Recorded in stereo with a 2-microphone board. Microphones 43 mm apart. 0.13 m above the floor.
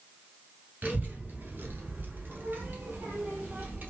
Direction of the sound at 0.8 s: 45° right (ahead or behind).